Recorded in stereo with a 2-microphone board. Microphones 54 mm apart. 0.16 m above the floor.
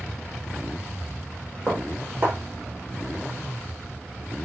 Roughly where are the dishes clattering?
Right.